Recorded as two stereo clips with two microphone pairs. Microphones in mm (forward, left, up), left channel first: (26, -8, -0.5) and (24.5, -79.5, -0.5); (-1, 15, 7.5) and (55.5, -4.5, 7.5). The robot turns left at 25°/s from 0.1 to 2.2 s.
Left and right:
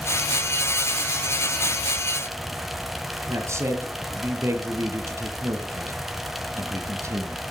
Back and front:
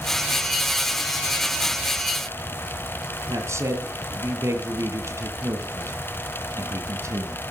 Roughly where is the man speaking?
Ahead right.